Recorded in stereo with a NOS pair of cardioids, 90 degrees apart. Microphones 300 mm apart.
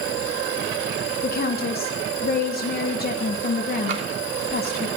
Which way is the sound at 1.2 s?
30° left.